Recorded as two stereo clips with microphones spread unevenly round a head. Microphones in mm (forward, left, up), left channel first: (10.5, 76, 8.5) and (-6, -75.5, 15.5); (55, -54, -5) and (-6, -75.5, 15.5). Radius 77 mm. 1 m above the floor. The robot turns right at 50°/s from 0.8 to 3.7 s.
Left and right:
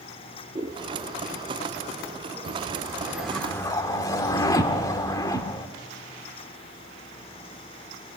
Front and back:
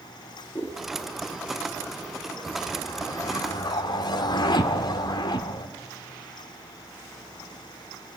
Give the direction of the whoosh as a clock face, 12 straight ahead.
2 o'clock.